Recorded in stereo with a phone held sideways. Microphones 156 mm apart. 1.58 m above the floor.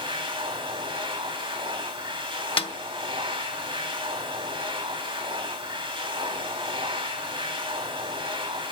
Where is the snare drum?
35° left (ahead or behind), 0.8 m.